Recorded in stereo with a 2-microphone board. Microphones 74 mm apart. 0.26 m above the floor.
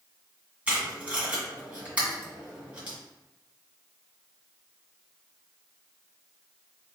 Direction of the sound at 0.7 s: 20° right (ahead or behind).